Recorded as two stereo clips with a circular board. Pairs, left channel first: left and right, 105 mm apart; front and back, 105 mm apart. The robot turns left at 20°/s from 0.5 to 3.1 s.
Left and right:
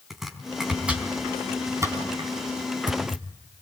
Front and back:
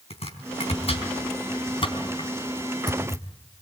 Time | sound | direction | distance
0.1 | chopping | straight ahead | 4 m